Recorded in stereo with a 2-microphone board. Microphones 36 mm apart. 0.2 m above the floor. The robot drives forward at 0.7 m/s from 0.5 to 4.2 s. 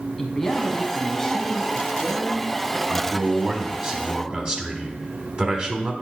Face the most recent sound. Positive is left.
turn(degrees=-30)  # may be behind; listen again after turning